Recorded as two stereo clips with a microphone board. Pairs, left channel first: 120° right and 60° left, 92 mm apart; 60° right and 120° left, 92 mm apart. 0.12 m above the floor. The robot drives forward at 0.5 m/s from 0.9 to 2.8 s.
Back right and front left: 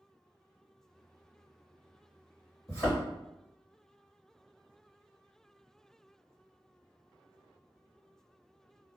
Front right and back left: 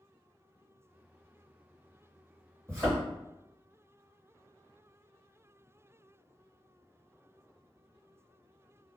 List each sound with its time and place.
2.7 s a thud: straight behind, 1.7 m